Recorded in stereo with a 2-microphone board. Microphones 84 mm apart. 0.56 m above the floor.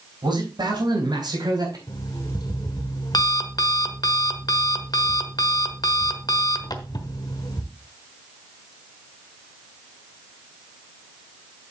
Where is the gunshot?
No gunshot in this recording.